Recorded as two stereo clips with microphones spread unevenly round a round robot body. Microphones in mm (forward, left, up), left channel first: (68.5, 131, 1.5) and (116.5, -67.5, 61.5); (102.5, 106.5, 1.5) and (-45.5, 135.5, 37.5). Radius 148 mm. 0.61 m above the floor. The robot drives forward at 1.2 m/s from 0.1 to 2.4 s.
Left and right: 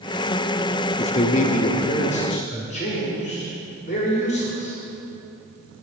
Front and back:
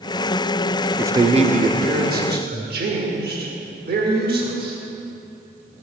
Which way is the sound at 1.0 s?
80° left.